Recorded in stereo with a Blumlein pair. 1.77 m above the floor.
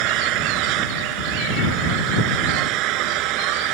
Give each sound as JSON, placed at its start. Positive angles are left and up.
{"t": 0.0, "sound": "an engine running", "azimuth_deg": -40}